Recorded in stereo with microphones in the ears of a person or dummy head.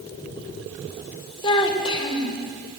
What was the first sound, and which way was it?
A child speaking, 30° left (ahead or behind).